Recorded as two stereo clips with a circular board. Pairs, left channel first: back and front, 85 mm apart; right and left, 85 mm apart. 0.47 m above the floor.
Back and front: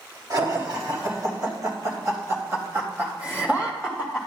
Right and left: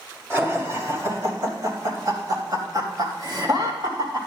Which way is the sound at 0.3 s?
35° left.